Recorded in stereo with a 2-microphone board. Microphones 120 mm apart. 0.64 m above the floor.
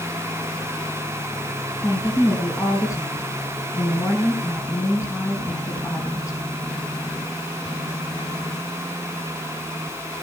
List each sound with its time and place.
1.8 s a woman speaking: 30° left (ahead or behind), 5.5 m